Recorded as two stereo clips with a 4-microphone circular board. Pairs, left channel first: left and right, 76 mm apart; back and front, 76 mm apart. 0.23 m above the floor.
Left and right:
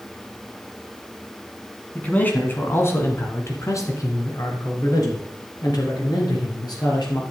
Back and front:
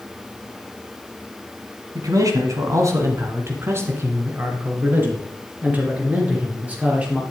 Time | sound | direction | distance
1.9 | a man speaking | 25° left | 1.8 m